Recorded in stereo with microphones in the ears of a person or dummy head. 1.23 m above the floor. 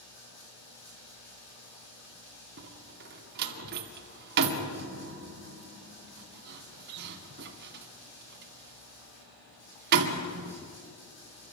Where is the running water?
60° left (ahead or behind), 9.5 m.